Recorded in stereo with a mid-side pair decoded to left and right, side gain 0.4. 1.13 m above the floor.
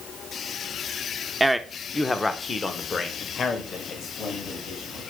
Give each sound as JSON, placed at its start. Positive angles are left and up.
{"t": 1.4, "sound": "a man speaking", "azimuth_deg": -15, "distance_m": 0.8}